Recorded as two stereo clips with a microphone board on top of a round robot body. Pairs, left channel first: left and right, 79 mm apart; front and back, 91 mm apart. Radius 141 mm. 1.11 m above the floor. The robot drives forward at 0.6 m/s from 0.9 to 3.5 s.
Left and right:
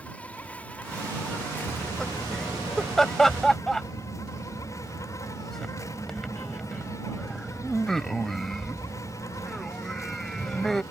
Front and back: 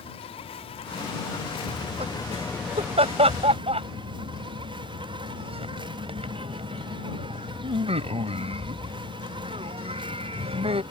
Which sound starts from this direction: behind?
Laughter, at 1.7 s.